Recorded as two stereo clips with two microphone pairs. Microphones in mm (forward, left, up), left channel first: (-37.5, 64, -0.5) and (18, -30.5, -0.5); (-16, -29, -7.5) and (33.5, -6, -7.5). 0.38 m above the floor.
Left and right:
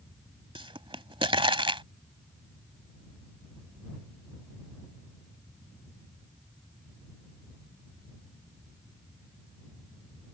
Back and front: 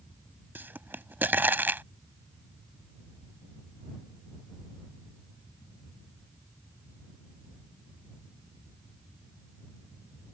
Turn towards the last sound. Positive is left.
turn(degrees=-25)